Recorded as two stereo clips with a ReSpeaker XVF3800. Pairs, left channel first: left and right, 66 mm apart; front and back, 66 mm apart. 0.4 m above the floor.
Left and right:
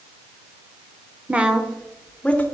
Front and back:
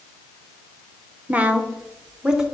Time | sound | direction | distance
1.3 | a woman speaking | 135° right | 1.0 m